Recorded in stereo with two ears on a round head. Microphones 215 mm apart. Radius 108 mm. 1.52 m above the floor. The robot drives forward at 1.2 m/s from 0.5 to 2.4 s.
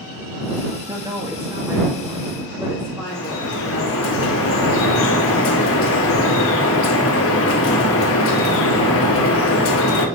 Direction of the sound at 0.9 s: 15° right (ahead or behind).